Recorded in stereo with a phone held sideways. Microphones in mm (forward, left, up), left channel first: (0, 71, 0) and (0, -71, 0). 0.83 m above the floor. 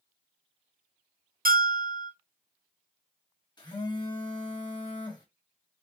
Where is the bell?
80° right, 0.5 m.